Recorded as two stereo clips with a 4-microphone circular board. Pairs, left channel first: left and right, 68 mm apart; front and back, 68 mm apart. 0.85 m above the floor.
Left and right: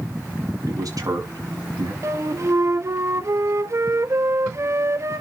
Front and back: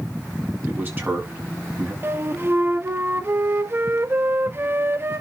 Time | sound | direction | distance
0.7 | a man speaking | 120° right | 5.5 m
2.0 | a flute | 130° right | 1.0 m